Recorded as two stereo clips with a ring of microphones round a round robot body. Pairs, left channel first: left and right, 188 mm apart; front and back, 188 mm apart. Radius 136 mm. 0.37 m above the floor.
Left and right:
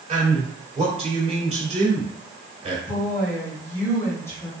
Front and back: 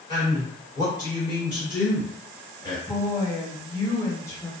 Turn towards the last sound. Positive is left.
turn(degrees=40)